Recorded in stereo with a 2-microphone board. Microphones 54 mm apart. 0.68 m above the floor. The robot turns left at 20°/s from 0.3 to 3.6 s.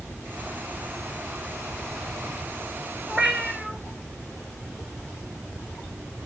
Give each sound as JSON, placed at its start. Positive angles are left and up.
{"t": 3.1, "sound": "a cat meowing", "side_deg": -10, "distance_m": 3.0}